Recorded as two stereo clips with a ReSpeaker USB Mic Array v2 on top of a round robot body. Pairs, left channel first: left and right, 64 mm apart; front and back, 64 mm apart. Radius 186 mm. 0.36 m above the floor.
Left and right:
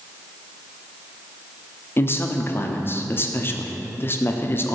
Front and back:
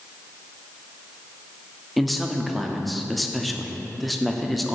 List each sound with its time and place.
2.0 s a man speaking: 90° left, 0.9 m